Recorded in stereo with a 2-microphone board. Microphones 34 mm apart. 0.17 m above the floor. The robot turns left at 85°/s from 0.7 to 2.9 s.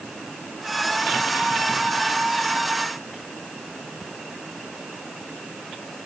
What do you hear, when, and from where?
Only background noise.